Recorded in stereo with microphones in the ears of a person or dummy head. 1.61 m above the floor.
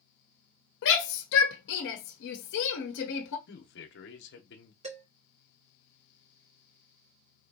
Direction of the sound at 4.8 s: 40° right (ahead or behind).